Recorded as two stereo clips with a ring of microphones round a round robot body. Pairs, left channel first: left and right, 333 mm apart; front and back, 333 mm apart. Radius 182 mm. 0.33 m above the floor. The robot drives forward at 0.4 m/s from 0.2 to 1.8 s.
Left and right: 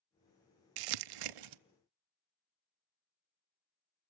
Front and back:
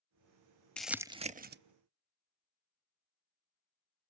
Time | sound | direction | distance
0.8 | crumpling | 85° right | 0.5 m